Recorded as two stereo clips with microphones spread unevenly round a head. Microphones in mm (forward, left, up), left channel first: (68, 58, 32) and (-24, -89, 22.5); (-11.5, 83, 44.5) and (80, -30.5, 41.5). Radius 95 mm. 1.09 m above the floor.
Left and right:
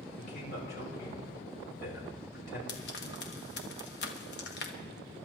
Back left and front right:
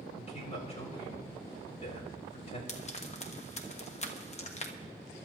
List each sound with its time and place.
0.2 s a man speaking: 90° left, 5 m
2.7 s frying: 90° left, 1.3 m